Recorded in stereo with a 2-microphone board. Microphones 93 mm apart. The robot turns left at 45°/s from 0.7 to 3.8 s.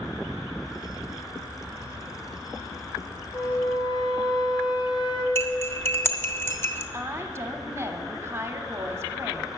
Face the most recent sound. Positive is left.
turn(degrees=-25)  # may be behind; listen again after turning